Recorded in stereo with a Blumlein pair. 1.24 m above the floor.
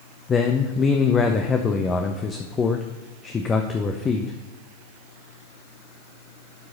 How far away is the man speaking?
About 0.7 m.